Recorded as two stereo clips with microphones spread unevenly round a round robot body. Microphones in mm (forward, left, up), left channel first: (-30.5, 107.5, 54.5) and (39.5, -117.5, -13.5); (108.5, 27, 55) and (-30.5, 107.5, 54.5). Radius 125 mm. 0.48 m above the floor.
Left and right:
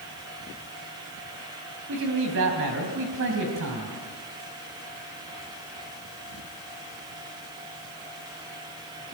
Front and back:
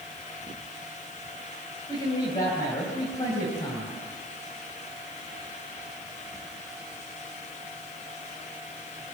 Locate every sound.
1.9 s a man speaking: 100° right, 3.5 m